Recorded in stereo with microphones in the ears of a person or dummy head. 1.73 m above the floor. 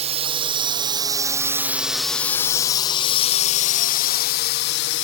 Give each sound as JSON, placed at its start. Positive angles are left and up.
{"t": 0.0, "sound": "a drone", "side_deg": -35}